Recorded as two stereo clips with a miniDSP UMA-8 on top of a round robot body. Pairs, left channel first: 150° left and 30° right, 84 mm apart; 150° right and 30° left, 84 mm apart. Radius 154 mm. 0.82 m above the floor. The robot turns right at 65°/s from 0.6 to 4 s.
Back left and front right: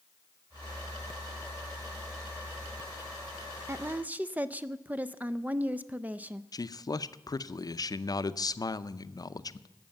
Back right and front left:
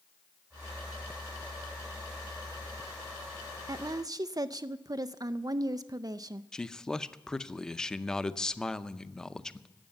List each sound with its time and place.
3.7 s a woman speaking: 15° left, 0.5 m; by 6.4 s 35° left, 0.5 m
6.5 s a man speaking: 130° left, 0.7 m